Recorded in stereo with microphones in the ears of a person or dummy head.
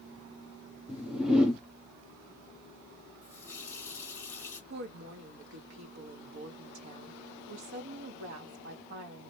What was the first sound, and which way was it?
A whoosh, 5° right (ahead or behind).